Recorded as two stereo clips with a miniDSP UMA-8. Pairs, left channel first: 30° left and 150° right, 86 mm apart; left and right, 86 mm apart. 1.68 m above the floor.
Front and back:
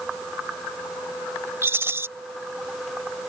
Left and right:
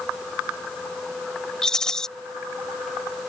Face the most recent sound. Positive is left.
turn(degrees=165)